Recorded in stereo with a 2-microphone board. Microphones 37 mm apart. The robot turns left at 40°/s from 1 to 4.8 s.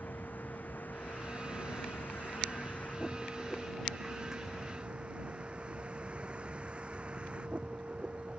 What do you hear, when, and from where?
0.0 s a vehicle: 120° left; by 8.4 s 30° right